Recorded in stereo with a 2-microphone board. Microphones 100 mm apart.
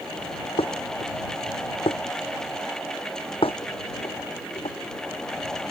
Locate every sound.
0.6 s dishes clattering: 65° left (ahead or behind)